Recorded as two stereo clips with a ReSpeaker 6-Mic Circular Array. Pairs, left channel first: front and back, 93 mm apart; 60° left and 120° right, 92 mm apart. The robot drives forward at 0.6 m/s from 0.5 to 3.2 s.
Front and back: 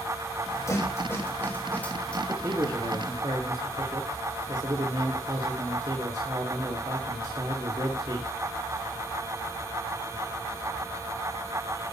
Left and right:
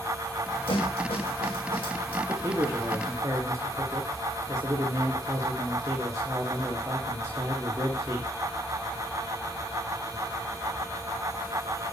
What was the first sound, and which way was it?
A snare drum, 55° left.